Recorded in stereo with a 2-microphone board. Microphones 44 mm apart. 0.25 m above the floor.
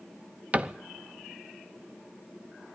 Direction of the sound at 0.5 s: 30° right (ahead or behind).